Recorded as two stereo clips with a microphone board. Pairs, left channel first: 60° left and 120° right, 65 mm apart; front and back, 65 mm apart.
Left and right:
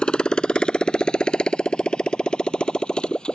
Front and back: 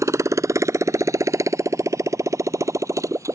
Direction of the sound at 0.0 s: 135° left.